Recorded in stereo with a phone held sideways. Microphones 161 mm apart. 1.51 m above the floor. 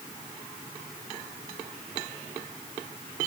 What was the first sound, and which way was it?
Only background noise.